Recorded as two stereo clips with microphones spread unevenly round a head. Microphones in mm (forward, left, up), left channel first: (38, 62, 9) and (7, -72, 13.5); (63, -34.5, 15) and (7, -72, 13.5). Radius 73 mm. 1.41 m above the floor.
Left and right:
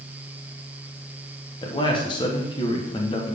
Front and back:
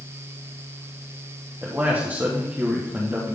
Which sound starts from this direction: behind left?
A man speaking, at 1.6 s.